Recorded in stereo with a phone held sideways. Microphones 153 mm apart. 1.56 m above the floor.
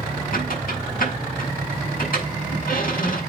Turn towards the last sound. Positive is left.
turn(degrees=70)  # may be behind; listen again after turning